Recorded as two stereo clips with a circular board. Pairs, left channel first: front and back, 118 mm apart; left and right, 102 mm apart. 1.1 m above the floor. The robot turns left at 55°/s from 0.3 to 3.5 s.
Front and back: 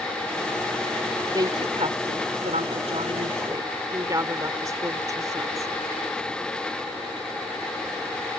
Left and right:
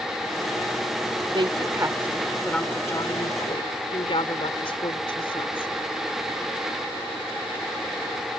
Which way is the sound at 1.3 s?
125° right.